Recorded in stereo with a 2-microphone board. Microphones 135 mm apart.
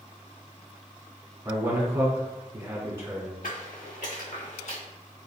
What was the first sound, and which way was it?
A man speaking, 20° right (ahead or behind).